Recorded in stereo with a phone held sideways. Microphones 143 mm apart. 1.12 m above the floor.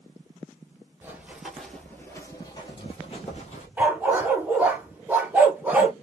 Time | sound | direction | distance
1.0 | running footsteps | 15° right (ahead or behind) | 1.1 m
3.8 | a dog barking | 10° right (ahead or behind) | 0.9 m